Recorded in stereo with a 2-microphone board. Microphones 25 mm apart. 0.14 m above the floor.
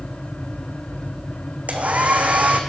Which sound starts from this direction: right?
A hair dryer, at 1.7 s.